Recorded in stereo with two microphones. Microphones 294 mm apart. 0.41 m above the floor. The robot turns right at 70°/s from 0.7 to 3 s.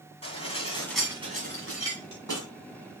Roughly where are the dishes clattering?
Behind.